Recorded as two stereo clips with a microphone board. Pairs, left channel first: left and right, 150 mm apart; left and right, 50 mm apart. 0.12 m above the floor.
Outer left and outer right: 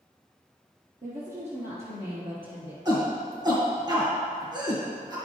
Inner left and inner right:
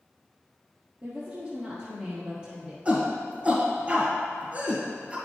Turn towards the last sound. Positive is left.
turn(degrees=-30)  # may be behind; listen again after turning